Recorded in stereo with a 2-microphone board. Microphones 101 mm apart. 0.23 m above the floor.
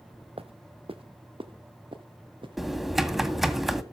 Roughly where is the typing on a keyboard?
Centre.